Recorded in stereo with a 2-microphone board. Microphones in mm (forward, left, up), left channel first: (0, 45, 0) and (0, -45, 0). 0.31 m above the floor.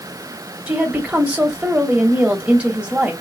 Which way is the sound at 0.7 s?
15° right (ahead or behind).